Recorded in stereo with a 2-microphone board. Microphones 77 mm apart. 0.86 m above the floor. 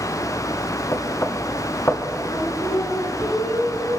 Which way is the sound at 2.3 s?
70° left (ahead or behind).